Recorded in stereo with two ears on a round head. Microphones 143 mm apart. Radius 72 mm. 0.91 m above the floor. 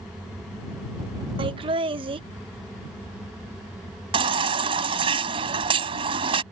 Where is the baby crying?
35° right (ahead or behind).